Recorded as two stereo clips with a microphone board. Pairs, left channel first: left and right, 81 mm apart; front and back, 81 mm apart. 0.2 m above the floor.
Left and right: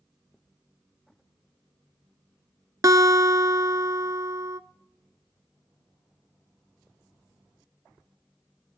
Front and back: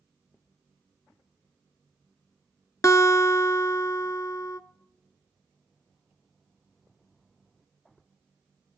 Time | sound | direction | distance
2.8 | a guitar | 45° right | 0.7 m